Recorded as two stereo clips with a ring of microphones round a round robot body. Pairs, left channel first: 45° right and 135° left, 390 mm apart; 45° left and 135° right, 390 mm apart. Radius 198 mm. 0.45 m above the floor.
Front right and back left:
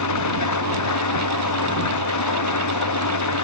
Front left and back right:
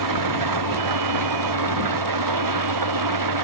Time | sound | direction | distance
0.0 | an engine running | 95° right | ?